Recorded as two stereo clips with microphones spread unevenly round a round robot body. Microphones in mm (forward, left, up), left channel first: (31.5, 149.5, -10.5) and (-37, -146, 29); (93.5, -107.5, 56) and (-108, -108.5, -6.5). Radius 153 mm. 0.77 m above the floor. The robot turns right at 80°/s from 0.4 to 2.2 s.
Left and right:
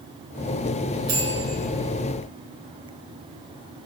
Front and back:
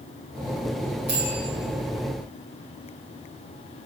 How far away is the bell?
About 4 m.